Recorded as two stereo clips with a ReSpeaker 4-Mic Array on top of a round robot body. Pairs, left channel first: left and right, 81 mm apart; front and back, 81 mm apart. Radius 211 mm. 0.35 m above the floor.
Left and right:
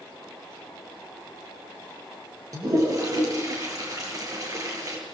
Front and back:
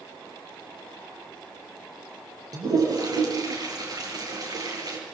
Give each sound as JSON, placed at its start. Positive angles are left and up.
{"t": 2.5, "sound": "a toilet flushing", "azimuth_deg": -135, "distance_m": 7.5}